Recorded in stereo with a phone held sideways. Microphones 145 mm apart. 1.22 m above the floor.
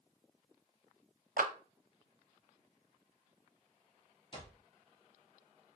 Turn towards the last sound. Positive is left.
turn(degrees=35)  # may be behind; listen again after turning